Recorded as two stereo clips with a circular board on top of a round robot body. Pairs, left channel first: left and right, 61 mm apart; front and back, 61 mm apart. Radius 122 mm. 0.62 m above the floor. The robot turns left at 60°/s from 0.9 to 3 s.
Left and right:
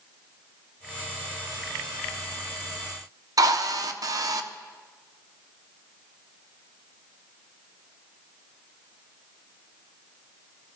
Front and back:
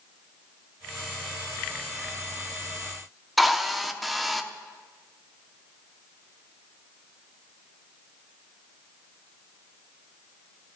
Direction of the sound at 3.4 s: 90° right.